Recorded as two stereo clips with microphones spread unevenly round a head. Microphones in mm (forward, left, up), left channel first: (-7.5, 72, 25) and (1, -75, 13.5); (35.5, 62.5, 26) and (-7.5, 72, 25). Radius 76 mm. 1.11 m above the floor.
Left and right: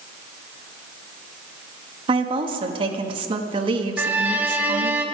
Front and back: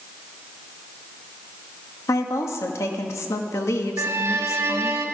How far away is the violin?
About 1.4 m.